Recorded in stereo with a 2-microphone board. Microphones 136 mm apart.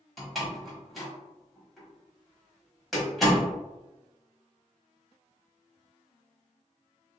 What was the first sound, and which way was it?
A door slam, centre (ahead or behind).